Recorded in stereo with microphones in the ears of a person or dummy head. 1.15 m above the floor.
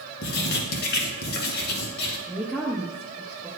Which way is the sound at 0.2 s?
55° left (ahead or behind).